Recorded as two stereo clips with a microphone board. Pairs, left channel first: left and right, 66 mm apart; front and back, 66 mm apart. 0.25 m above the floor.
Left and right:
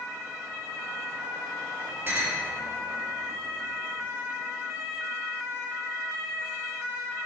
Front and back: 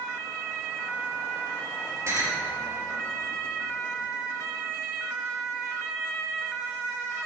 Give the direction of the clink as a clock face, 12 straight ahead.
5 o'clock.